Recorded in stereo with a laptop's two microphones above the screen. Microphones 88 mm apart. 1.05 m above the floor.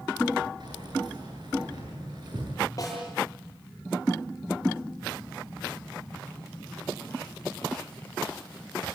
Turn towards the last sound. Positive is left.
turn(degrees=40)  # may be behind; listen again after turning